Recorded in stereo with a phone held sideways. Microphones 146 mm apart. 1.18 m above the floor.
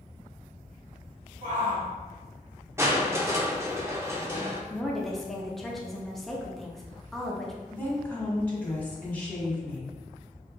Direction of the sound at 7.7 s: 10° left (ahead or behind).